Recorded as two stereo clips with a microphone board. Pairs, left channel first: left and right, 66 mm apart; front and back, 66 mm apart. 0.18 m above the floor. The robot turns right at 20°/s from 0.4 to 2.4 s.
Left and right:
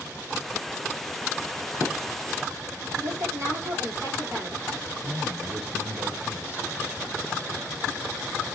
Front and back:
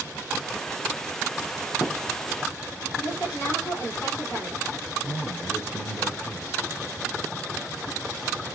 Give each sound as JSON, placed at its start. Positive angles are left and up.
{"t": 1.6, "sound": "a crack", "azimuth_deg": -45, "distance_m": 6.5}
{"t": 3.0, "sound": "a woman speaking", "azimuth_deg": -45, "distance_m": 8.0}
{"t": 5.0, "sound": "a man speaking", "azimuth_deg": -35, "distance_m": 2.0}